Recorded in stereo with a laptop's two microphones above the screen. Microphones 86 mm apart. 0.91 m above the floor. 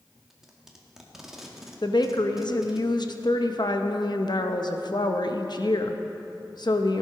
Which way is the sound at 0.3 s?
5° right (ahead or behind).